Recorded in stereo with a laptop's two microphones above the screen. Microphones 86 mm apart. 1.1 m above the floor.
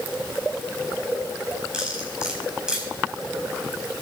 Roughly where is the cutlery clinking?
Centre.